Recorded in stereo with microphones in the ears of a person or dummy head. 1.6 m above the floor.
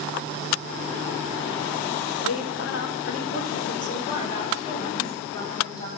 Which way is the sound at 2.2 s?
75° left (ahead or behind).